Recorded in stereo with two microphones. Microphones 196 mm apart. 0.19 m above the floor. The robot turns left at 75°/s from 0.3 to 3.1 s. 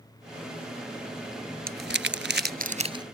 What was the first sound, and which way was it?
Crumpling, 50° right (ahead or behind).